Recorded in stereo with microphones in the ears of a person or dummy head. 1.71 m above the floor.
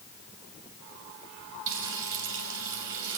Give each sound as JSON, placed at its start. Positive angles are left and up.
{"t": 1.7, "sound": "frying", "side_deg": -70, "distance_m": 6.0}